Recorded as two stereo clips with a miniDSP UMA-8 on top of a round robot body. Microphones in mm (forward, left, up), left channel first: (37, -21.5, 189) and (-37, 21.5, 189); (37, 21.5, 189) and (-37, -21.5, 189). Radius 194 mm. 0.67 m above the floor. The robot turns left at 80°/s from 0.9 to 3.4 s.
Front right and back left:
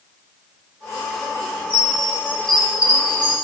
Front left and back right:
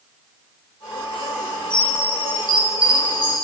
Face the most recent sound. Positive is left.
turn(degrees=175)